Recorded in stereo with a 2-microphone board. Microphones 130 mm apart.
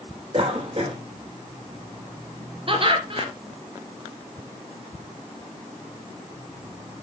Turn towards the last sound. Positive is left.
turn(degrees=-45)  # may be behind; listen again after turning